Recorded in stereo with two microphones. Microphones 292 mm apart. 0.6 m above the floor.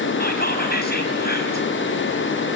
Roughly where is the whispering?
Left.